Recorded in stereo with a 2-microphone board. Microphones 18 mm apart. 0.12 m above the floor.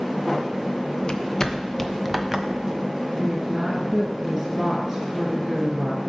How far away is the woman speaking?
About 1.6 m.